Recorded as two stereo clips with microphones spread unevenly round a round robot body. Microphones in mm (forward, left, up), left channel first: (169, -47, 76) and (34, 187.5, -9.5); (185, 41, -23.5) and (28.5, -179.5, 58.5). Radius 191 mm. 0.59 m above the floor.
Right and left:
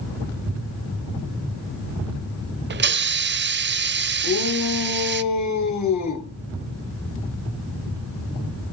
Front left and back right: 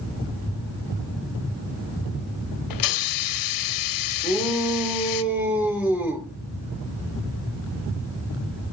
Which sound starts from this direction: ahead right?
A shout, at 4.2 s.